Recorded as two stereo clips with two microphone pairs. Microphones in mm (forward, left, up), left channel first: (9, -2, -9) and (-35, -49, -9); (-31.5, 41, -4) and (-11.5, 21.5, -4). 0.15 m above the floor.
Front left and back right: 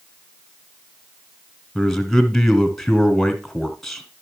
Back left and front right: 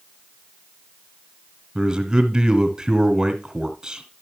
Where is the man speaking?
35° right, 1.5 m.